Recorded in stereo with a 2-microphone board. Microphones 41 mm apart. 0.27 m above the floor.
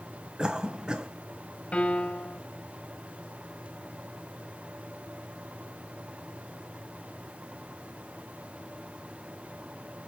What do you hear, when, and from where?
0.4 s a cough: 20° right (ahead or behind), 1.3 m
1.7 s a piano: 30° left (ahead or behind), 1.7 m